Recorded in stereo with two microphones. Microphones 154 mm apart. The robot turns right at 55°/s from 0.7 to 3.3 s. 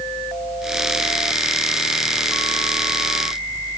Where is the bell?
No bell in this recording.